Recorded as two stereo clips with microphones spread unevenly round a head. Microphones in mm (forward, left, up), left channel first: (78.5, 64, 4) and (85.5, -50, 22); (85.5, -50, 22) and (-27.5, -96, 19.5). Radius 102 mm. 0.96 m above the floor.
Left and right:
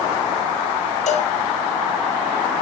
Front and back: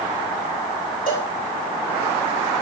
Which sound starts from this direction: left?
A cowbell, at 1.1 s.